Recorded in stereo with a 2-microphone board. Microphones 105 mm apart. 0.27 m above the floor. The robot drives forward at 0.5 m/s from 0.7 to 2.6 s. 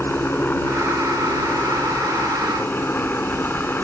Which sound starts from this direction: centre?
A helicopter, at 0.0 s.